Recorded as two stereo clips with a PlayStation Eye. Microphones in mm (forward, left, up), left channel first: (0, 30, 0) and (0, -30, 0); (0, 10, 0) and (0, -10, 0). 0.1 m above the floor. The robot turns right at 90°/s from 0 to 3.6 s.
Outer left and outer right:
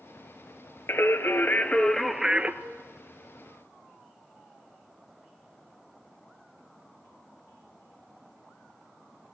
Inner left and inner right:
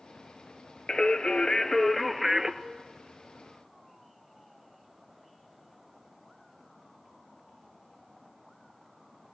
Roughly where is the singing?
Left.